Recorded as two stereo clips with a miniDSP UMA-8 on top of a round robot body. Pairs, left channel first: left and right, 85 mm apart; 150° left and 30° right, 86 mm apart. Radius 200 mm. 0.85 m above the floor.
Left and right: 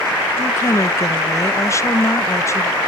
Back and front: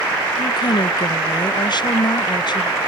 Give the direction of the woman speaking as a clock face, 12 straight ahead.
7 o'clock.